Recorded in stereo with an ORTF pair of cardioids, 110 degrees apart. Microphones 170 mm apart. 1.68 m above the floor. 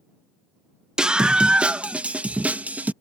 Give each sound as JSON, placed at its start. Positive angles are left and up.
{"t": 1.0, "sound": "a scream", "azimuth_deg": -5}